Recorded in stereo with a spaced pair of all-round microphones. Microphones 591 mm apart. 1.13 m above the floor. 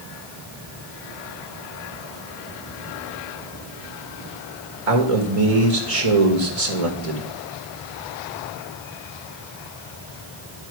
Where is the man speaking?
65° right (ahead or behind), 1.4 m.